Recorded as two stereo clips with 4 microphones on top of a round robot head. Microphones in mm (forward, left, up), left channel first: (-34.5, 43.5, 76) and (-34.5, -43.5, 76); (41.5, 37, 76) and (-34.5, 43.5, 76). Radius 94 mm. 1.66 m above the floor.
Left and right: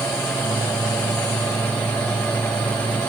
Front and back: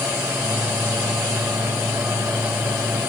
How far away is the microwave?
About 7.5 m.